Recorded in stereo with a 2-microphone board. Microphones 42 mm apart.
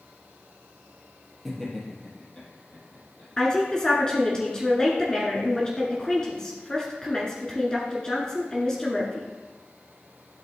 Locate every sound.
1.4 s laughter: 5° left (ahead or behind), 2.5 m; by 3.3 s 40° left (ahead or behind), 3.5 m
3.4 s a woman speaking: 20° left (ahead or behind), 1.3 m